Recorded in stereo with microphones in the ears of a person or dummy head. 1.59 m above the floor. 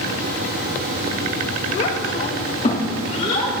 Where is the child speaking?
50° left (ahead or behind), 1.1 m.